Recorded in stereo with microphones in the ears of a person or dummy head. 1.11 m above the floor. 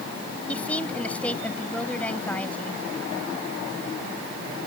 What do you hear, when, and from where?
0.5 s a woman speaking: 10° left (ahead or behind)